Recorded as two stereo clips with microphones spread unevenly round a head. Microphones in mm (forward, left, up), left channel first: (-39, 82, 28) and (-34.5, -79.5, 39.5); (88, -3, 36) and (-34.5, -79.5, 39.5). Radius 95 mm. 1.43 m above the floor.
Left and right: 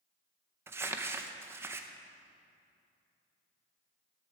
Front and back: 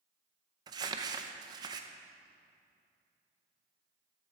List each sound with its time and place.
0.7 s crumpling: 135° right, 0.5 m